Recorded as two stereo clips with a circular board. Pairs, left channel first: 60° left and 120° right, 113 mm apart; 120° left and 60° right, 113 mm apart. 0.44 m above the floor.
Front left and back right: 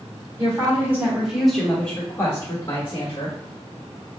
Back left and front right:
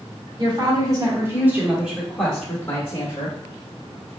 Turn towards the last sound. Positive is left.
turn(degrees=70)